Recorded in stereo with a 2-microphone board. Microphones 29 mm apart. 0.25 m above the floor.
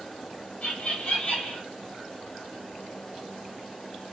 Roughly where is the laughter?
Left.